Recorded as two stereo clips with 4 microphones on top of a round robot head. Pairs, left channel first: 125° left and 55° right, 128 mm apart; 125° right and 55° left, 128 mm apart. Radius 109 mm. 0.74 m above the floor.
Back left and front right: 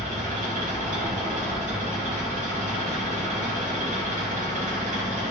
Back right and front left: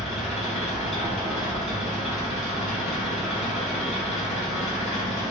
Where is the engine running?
85° right, 1.0 m.